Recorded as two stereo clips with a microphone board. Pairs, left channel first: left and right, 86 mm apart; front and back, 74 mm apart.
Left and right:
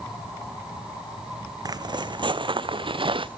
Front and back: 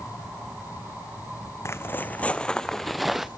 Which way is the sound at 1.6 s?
50° right.